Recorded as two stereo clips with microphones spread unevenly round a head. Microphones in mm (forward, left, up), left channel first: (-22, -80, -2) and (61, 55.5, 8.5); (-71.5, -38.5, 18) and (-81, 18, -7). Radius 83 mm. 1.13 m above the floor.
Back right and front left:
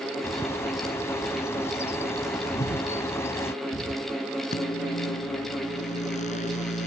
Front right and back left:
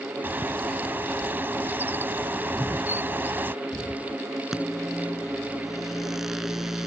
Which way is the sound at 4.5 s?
175° right.